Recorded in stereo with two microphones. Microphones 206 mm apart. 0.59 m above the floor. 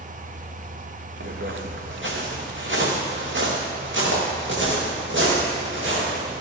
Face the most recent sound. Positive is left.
turn(degrees=-70)  # may be behind; listen again after turning